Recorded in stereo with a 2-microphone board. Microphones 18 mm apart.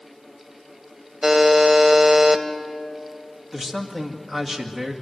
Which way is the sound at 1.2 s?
15° right (ahead or behind).